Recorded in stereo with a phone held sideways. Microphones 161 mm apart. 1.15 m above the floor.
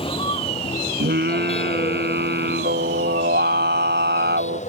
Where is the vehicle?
30° left (ahead or behind); by 4.7 s 45° left (ahead or behind).